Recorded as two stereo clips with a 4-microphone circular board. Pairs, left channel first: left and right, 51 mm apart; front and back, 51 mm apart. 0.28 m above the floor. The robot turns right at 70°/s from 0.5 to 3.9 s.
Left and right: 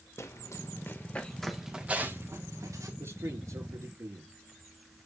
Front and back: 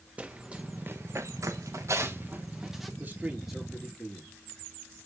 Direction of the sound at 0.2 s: 120° left.